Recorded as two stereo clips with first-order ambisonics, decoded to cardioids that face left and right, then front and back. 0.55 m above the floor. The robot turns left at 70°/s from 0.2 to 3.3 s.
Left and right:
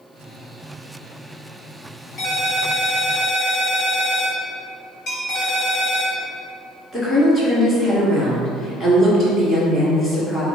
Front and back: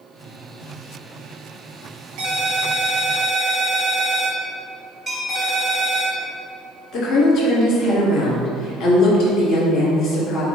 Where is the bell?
110° left, 1.1 m.